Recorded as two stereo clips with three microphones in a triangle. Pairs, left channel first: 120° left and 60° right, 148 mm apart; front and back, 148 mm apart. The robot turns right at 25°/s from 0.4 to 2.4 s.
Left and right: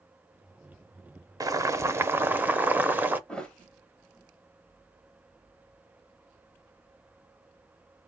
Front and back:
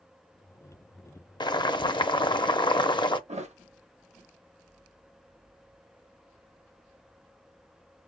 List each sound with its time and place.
1.4 s boiling: 20° right, 0.5 m; by 3.2 s 5° left, 0.5 m
3.3 s a thud: 160° right, 0.7 m